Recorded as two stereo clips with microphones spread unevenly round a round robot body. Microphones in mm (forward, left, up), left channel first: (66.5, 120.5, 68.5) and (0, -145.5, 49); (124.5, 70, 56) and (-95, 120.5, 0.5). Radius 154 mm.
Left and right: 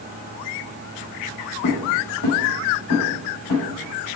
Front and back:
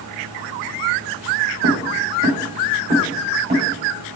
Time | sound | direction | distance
1.6 | footsteps | 130° left | 1.9 m